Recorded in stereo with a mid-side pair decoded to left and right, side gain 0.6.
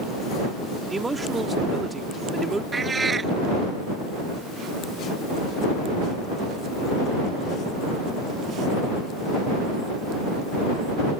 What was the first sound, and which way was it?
A man speaking, 15° right.